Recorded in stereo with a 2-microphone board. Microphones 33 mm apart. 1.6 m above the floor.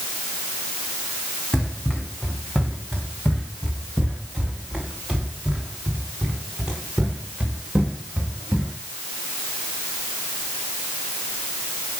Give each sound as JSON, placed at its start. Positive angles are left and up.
{"t": 1.5, "sound": "running footsteps", "side_deg": 30, "distance_m": 5.0}